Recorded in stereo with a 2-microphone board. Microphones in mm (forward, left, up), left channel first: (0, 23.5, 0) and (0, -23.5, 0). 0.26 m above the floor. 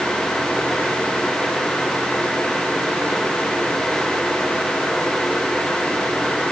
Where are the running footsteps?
I don't hear running footsteps.